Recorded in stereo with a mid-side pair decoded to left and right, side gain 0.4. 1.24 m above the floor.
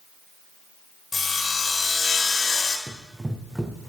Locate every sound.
1.1 s sawing: 40° left, 4.5 m
2.9 s running footsteps: 15° right, 4.5 m